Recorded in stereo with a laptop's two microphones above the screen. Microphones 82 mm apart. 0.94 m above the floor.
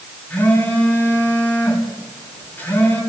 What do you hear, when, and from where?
0.3 s a phone buzzing: 20° left (ahead or behind), 7 m